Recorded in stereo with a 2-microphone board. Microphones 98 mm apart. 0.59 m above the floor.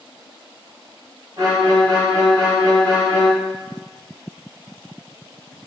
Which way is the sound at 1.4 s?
40° right (ahead or behind).